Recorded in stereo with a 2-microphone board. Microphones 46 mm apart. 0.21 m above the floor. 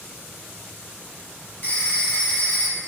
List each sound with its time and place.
1.6 s a phone ringing: 40° left (ahead or behind), 1.3 m